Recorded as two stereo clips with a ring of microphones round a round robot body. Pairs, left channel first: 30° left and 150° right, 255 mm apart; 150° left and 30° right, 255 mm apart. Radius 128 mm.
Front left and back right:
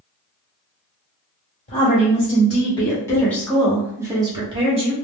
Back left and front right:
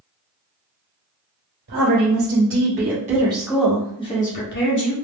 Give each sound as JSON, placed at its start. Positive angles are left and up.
{"t": 1.7, "sound": "a woman speaking", "azimuth_deg": -30, "distance_m": 1.8}